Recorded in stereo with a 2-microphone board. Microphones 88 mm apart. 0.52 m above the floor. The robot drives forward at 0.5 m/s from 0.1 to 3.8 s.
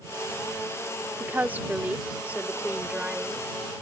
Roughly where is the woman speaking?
Right.